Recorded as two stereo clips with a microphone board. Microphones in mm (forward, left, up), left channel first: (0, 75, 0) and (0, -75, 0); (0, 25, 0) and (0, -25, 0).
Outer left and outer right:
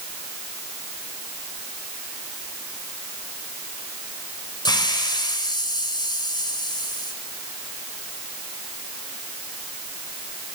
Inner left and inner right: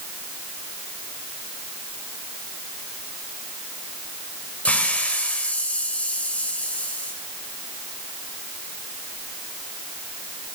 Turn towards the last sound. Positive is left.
turn(degrees=30)  # may be behind; listen again after turning